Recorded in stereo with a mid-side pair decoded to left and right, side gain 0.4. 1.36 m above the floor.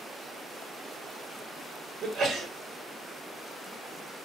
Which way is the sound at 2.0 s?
65° right.